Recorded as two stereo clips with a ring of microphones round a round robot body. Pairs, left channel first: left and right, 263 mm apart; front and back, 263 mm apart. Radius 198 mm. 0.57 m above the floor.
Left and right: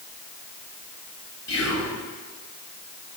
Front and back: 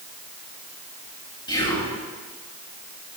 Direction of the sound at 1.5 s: 75° left.